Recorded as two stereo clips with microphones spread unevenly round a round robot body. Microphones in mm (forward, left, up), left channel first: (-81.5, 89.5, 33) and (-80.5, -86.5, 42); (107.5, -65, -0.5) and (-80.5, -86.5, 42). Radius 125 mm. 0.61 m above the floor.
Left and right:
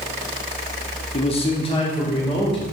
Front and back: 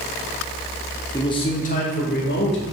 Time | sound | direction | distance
1.1 | a man speaking | 60° left | 0.8 m